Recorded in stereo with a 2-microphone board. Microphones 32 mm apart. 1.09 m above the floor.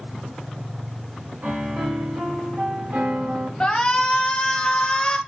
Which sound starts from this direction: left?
A shout, at 3.6 s.